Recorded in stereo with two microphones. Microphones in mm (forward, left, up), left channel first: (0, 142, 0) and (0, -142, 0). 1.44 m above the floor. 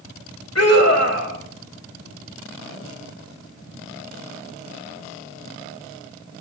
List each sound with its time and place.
0.6 s a scream: 60° left (ahead or behind), 3 m